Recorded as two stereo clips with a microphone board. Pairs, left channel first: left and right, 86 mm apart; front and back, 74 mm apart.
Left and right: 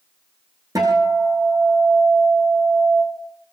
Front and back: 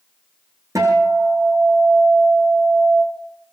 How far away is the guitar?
About 6.5 m.